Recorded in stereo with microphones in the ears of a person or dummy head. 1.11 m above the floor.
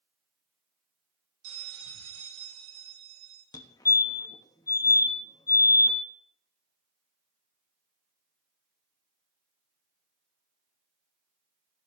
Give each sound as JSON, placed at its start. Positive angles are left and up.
{"t": 1.4, "sound": "a bell", "side_deg": -70, "distance_m": 3.0}
{"t": 3.5, "sound": "a fire alarm", "side_deg": 15, "distance_m": 1.0}